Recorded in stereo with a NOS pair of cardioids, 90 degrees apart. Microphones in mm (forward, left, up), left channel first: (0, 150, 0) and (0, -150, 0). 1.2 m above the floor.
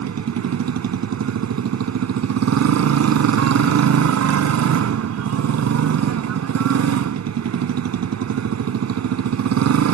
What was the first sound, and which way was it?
A motorcycle, 60° right.